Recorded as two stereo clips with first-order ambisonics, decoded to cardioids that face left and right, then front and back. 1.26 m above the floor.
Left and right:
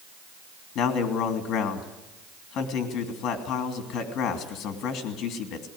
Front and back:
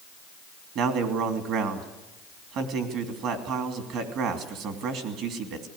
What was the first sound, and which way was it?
A man speaking, 140° left.